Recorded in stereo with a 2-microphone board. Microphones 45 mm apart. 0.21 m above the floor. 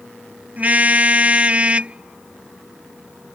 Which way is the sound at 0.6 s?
35° right (ahead or behind).